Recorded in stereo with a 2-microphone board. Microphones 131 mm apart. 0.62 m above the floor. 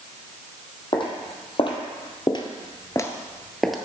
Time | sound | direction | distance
0.9 | footsteps | 40° left (ahead or behind) | 1.5 m